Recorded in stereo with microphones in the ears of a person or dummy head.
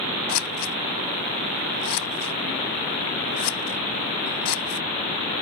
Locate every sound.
0.3 s scissors: 60° left (ahead or behind)